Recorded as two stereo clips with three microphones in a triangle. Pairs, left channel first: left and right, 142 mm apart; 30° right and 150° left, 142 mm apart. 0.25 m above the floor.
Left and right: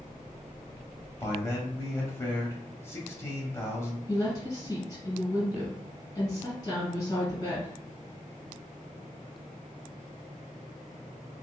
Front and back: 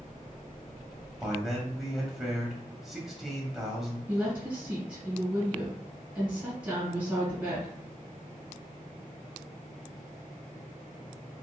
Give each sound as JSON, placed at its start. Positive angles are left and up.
{"t": 1.2, "sound": "a man speaking", "azimuth_deg": 65, "distance_m": 0.9}
{"t": 4.1, "sound": "a woman speaking", "azimuth_deg": 90, "distance_m": 1.7}